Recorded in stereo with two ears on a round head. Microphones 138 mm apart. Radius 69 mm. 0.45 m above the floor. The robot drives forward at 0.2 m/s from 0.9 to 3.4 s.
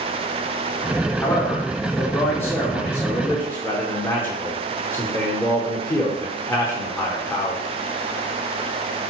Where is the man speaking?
15° left (ahead or behind), 0.9 m.